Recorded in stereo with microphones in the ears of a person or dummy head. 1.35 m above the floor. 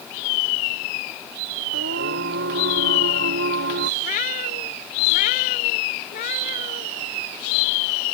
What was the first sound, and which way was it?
Singing, 70° right (ahead or behind).